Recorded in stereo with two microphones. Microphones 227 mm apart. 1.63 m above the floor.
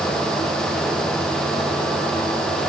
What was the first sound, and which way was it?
Only background noise.